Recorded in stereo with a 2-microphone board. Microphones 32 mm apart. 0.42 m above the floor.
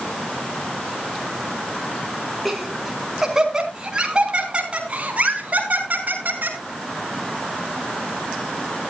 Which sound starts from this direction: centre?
Laughter, at 2.5 s.